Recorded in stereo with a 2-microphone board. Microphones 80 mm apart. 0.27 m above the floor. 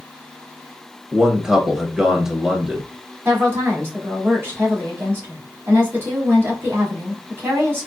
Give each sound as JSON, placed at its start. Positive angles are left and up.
{"t": 1.1, "sound": "a man speaking", "side_deg": -10, "distance_m": 0.9}
{"t": 3.2, "sound": "a woman speaking", "side_deg": -30, "distance_m": 2.0}